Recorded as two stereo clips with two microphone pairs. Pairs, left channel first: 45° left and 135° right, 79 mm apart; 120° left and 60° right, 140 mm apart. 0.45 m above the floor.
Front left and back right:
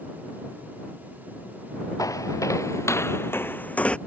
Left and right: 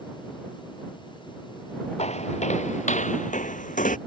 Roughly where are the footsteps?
Left.